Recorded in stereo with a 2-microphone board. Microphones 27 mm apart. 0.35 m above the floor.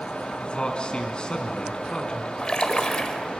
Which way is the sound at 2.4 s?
30° left (ahead or behind).